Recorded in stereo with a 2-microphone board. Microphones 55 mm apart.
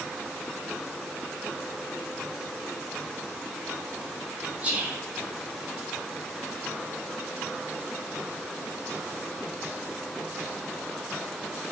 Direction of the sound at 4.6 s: 25° right (ahead or behind).